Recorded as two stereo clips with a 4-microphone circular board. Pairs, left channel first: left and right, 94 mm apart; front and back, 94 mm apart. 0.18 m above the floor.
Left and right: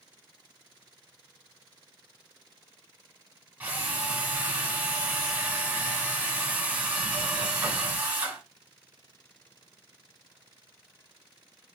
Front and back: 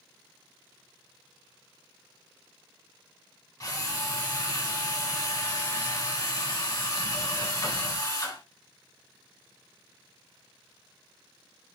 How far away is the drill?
About 1.5 m.